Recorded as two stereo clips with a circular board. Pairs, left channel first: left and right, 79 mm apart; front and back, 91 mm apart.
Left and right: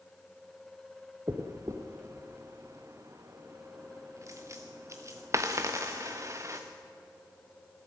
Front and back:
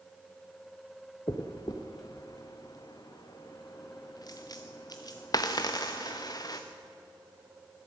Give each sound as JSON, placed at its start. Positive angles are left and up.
{"t": 1.3, "sound": "a dropped coin", "azimuth_deg": -40, "distance_m": 1.0}